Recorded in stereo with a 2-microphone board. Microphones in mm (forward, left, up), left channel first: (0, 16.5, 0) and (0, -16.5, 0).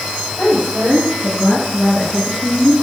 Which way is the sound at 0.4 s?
5° right (ahead or behind).